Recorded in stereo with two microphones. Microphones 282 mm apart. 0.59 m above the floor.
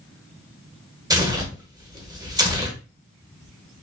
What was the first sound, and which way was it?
Tearing paper, 15° right (ahead or behind).